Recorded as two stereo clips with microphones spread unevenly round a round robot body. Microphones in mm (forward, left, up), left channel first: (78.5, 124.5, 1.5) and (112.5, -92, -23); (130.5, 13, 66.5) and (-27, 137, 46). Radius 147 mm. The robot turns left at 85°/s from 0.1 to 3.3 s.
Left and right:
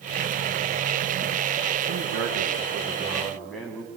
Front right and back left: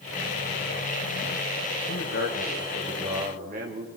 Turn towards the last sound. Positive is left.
turn(degrees=-170)